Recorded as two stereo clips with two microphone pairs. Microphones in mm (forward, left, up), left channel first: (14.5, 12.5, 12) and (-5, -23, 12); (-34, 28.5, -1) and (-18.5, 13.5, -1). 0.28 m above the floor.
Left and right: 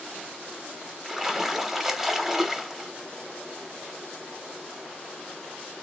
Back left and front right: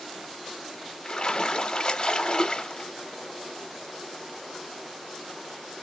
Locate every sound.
1.1 s a splash: 165° left, 0.7 m